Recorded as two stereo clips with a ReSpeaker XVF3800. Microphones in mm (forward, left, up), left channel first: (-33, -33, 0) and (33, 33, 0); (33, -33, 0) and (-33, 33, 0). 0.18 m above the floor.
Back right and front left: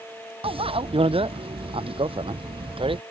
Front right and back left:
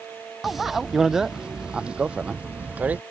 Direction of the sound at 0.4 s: 45° left.